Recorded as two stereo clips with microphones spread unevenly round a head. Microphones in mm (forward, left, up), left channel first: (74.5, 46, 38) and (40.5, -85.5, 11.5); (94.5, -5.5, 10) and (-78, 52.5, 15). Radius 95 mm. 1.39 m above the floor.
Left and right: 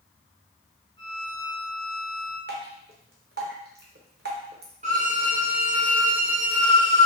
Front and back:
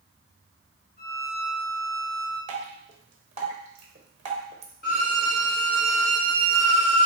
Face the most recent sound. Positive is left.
turn(degrees=-65)